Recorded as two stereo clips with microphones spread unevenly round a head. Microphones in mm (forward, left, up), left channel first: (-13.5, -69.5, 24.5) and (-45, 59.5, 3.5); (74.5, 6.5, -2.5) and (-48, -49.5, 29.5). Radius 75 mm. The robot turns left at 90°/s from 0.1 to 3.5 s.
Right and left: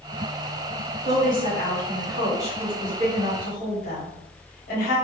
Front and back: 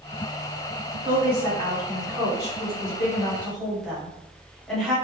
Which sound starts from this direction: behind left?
A woman speaking, at 1.1 s.